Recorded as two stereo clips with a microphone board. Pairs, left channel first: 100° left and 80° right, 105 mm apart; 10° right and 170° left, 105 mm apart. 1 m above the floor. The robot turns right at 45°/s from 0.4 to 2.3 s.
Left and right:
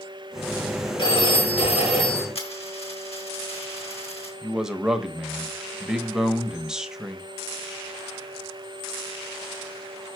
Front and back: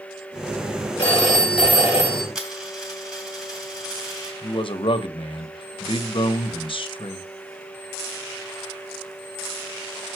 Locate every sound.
1.0 s a phone ringing: 65° left, 4 m; by 2.2 s 120° left, 4 m
2.4 s a dropped coin: 85° left, 3.5 m
4.4 s a man speaking: 5° left, 0.9 m